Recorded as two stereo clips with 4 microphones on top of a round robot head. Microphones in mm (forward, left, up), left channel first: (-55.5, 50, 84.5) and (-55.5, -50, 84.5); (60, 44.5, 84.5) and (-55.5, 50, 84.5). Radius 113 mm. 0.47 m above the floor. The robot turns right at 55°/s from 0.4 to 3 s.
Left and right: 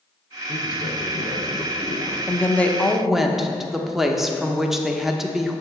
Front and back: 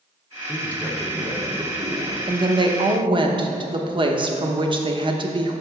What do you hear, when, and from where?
0.5 s a man speaking: 60° left, 1.4 m; by 2.2 s 150° left, 1.4 m
2.3 s a woman speaking: 145° left, 1.0 m; by 5.6 s 175° right, 1.0 m